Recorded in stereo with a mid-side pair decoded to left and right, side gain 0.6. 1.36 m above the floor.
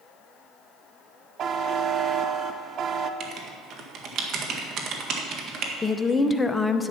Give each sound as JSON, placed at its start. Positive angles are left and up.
{"t": 1.4, "sound": "a buzzer", "azimuth_deg": -45, "distance_m": 0.8}
{"t": 3.2, "sound": "writing", "azimuth_deg": -50, "distance_m": 1.7}
{"t": 5.8, "sound": "a woman speaking", "azimuth_deg": 20, "distance_m": 0.8}